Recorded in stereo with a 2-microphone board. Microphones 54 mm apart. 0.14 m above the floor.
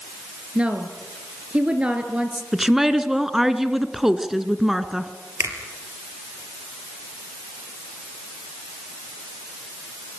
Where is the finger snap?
65° right (ahead or behind), 3.5 m.